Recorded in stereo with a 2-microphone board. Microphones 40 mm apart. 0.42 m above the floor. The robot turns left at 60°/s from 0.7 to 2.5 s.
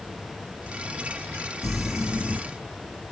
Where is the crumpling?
5° left, 2.5 m; by 2.4 s 40° right, 2.5 m.